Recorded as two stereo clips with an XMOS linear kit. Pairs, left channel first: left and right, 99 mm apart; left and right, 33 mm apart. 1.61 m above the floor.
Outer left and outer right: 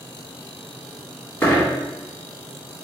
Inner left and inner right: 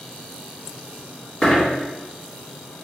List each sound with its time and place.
1.4 s a dropped coin: 25° left (ahead or behind), 1.6 m